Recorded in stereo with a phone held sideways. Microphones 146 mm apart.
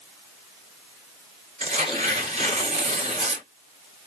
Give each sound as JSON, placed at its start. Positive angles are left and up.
{"t": 1.6, "sound": "tearing paper", "side_deg": -40, "distance_m": 1.4}